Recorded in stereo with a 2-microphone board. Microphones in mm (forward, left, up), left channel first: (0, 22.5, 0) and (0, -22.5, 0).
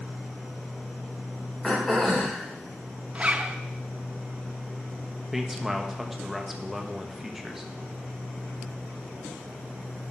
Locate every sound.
1.6 s throat clearing: centre (ahead or behind), 3.5 m
3.1 s a zipper: 30° right (ahead or behind), 0.5 m
5.3 s a man speaking: 5° right (ahead or behind), 1.1 m